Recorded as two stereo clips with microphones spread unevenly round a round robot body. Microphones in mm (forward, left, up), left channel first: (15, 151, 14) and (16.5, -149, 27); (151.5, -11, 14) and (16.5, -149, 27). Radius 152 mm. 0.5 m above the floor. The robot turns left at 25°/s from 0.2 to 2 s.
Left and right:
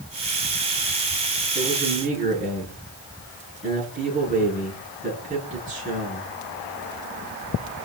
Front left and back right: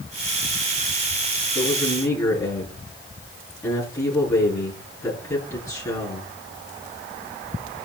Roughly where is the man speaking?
Ahead.